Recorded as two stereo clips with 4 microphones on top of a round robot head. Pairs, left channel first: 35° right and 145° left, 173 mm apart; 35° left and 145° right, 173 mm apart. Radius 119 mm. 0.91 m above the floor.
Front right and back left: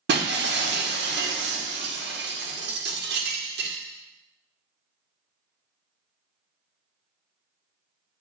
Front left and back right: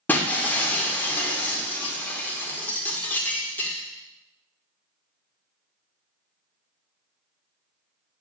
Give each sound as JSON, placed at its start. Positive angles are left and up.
{"t": 0.1, "sound": "breaking glass", "azimuth_deg": 115, "distance_m": 2.0}